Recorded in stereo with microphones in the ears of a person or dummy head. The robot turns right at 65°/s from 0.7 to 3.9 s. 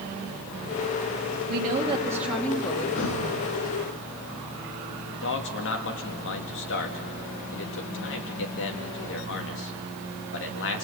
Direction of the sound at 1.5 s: 55° right.